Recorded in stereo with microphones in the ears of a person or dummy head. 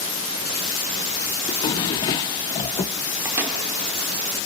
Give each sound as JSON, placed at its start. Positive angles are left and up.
{"t": 1.5, "sound": "a drawer", "side_deg": 25, "distance_m": 0.6}
{"t": 3.2, "sound": "a microwave", "side_deg": -15, "distance_m": 3.0}